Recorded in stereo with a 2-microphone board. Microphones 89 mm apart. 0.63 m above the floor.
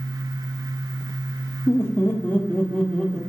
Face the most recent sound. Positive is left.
turn(degrees=5)  # may be behind; listen again after turning